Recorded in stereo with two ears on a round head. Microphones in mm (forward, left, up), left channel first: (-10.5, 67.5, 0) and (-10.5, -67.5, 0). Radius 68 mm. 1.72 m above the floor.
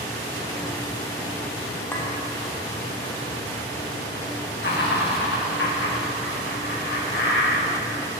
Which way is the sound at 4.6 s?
80° left.